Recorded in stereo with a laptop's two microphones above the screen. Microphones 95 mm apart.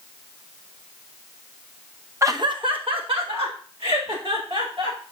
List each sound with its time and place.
2.2 s laughter: 30° right (ahead or behind), 0.5 m; by 5.0 s 75° right (ahead or behind), 4.5 m